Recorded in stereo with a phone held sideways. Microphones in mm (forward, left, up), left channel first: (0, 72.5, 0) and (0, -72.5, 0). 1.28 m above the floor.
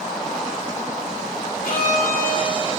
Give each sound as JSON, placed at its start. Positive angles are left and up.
{"t": 1.6, "sound": "a violin", "side_deg": 80, "distance_m": 2.0}